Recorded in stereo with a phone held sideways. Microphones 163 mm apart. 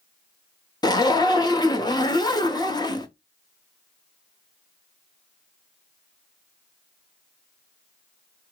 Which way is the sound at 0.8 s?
25° left (ahead or behind).